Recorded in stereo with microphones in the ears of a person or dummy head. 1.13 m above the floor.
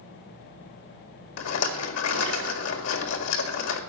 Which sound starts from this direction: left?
A rattle, at 1.4 s.